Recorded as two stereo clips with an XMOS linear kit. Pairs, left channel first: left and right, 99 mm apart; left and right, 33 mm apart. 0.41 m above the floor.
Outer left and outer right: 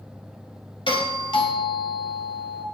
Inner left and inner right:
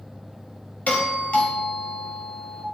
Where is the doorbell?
60° left (ahead or behind), 3 m.